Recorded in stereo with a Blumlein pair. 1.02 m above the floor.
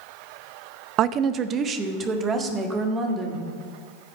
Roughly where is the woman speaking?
Ahead right.